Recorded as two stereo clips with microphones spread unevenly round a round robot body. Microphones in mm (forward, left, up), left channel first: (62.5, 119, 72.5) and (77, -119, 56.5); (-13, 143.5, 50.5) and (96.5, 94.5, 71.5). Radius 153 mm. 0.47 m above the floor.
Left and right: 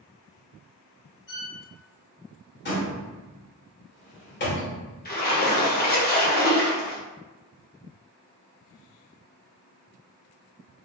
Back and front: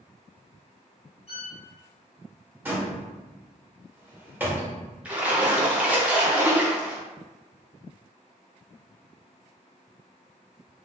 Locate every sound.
1.3 s a violin: 135° left, 2.0 m
2.6 s a door slam: 55° left, 1.6 m
5.0 s a splash: 65° left, 1.3 m